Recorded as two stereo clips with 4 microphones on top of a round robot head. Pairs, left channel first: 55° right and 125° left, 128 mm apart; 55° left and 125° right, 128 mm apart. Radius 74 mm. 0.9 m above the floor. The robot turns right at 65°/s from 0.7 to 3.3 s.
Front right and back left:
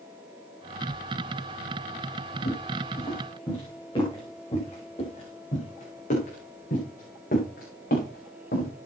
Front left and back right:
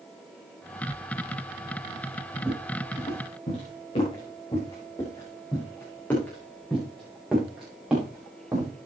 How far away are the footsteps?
About 7 m.